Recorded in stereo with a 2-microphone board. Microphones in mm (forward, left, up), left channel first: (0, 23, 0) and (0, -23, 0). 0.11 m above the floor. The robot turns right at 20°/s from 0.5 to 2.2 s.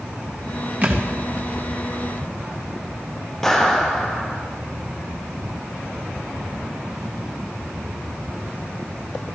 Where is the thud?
35° right (ahead or behind), 3 m; by 1.1 s 40° right (ahead or behind), 3 m.